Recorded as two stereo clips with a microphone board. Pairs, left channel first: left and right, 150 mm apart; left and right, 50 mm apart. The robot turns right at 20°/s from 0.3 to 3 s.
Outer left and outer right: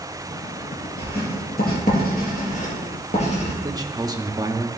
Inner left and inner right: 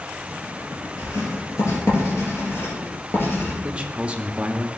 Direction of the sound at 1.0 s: 85° left.